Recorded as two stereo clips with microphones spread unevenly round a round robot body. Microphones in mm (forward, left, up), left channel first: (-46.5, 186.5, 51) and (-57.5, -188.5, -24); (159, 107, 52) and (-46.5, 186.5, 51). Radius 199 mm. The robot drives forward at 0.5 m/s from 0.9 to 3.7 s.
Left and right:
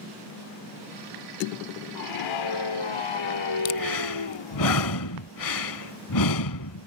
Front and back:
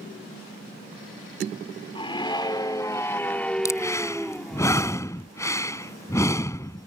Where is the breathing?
55° left.